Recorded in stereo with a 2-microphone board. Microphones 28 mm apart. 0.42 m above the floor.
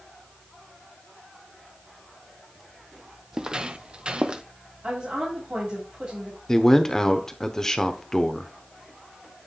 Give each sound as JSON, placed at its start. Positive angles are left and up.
{"t": 3.3, "sound": "footsteps", "side_deg": -25, "distance_m": 0.6}
{"t": 4.8, "sound": "a woman speaking", "side_deg": -55, "distance_m": 2.5}
{"t": 6.5, "sound": "a man speaking", "side_deg": 20, "distance_m": 0.8}